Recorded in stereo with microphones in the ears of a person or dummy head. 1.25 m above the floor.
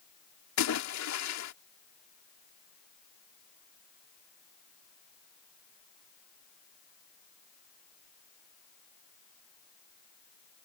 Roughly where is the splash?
Left.